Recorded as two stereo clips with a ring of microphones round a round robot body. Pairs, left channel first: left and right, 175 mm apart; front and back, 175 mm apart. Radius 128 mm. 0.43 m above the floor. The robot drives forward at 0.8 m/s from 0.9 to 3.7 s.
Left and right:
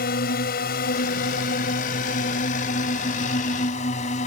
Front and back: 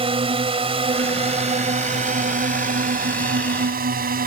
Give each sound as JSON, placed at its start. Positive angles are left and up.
{"t": 0.0, "sound": "a drone", "azimuth_deg": 125}